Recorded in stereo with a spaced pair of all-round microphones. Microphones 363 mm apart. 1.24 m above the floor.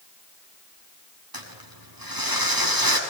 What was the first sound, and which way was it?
Crumpling, 70° right (ahead or behind).